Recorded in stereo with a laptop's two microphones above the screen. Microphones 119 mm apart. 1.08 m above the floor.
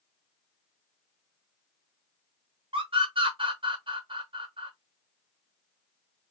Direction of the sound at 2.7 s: 50° right (ahead or behind).